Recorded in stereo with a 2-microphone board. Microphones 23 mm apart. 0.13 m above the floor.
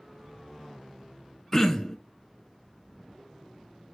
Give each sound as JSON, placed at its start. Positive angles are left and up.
{"t": 1.5, "sound": "throat clearing", "side_deg": 20, "distance_m": 0.7}